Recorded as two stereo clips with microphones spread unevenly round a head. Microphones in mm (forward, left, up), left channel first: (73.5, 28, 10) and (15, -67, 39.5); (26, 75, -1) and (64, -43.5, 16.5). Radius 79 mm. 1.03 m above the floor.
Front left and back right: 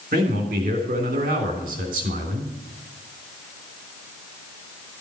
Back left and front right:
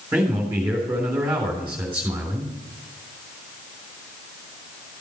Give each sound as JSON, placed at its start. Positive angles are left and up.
{"t": 0.1, "sound": "a man speaking", "azimuth_deg": -150, "distance_m": 3.5}